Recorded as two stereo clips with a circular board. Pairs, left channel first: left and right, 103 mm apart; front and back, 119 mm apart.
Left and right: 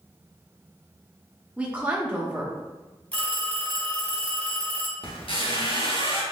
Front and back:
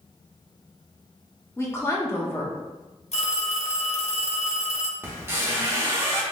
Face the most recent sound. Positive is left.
turn(degrees=115)